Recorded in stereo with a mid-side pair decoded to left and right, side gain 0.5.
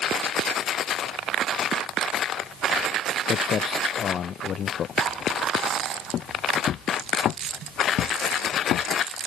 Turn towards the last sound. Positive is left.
turn(degrees=70)